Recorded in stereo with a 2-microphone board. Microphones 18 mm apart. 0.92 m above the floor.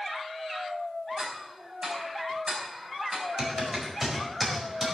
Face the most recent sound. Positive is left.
turn(degrees=-15)  # may be behind; listen again after turning